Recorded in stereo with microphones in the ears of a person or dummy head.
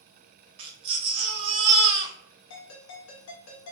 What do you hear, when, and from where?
0.6 s a baby crying: 35° right (ahead or behind), 0.6 m
2.5 s a ringtone: 80° left, 1.0 m